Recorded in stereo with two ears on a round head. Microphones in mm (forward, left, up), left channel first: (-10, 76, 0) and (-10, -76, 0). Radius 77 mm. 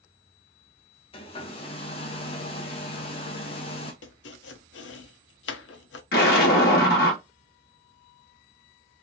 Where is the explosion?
60° left (ahead or behind), 1.6 m.